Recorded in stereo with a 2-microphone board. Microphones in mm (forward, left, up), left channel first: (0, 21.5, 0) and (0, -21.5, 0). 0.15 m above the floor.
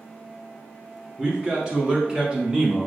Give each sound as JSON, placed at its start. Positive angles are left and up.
{"t": 1.2, "sound": "a man speaking", "side_deg": -20, "distance_m": 1.7}